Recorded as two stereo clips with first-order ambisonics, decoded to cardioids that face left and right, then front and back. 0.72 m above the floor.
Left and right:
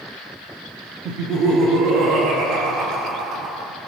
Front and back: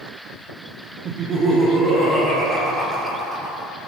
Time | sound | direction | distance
1.1 | laughter | 125° right | 1.4 m